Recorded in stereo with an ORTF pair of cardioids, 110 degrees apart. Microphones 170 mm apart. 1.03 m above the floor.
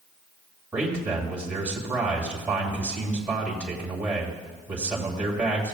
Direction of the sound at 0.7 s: 10° right.